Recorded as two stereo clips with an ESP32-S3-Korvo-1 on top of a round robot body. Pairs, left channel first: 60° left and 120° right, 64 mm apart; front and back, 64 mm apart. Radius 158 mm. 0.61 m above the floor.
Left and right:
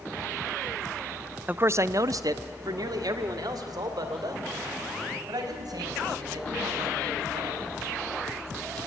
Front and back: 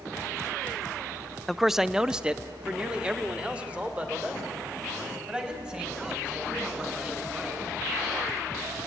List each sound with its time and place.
1.5 s a man speaking: 85° right, 0.5 m; by 7.6 s 110° right, 6 m